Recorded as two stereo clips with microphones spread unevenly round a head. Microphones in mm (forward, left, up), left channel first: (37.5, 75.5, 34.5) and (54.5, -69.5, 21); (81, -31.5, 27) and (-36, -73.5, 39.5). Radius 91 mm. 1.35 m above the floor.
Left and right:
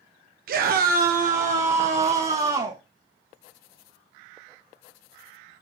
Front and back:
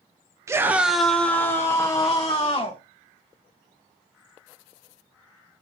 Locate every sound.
0.5 s a scream: 90° right, 0.6 m; by 2.8 s 30° right, 1.4 m